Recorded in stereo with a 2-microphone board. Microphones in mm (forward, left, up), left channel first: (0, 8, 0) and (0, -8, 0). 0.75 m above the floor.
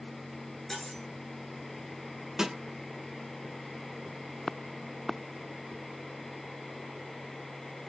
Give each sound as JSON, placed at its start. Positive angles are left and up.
{"t": 0.7, "sound": "cutlery clinking", "side_deg": 30, "distance_m": 5.5}
{"t": 2.4, "sound": "a snare drum", "side_deg": -35, "distance_m": 2.0}